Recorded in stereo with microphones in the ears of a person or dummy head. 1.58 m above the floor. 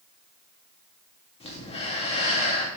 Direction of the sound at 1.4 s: 35° left (ahead or behind).